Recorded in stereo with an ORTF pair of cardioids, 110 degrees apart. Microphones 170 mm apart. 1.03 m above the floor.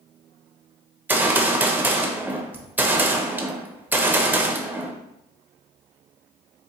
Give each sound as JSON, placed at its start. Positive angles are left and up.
{"t": 1.1, "sound": "a gunshot", "azimuth_deg": -10, "distance_m": 0.5}